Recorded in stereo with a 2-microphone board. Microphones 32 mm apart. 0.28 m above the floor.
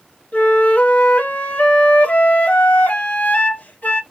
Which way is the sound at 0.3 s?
60° left (ahead or behind).